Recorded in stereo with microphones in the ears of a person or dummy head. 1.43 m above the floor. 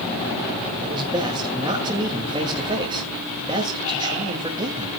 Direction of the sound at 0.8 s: 25° right (ahead or behind).